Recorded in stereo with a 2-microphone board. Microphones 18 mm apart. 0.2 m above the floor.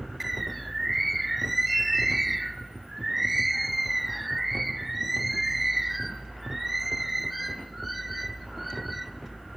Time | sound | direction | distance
0.2 | a bird | centre (ahead or behind) | 0.5 m